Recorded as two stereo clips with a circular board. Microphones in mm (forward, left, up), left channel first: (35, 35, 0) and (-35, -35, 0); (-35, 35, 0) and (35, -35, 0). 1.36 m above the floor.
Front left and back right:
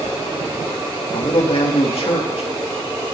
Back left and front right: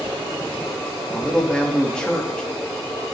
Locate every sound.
1.1 s a man speaking: 55° left, 3 m